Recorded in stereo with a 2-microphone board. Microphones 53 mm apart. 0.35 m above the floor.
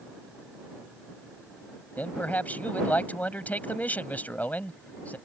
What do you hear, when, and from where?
2.0 s a man speaking: 30° left (ahead or behind)